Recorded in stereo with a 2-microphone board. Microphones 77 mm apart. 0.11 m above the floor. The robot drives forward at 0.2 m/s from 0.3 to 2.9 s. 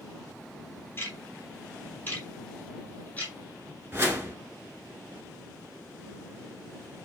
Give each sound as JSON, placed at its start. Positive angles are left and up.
{"t": 1.0, "sound": "ticking", "side_deg": 30, "distance_m": 0.7}
{"t": 3.9, "sound": "a whoosh", "side_deg": -30, "distance_m": 0.7}